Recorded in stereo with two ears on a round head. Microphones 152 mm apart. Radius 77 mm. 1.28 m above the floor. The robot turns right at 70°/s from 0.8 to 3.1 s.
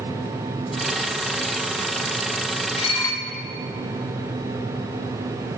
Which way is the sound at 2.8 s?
45° left (ahead or behind).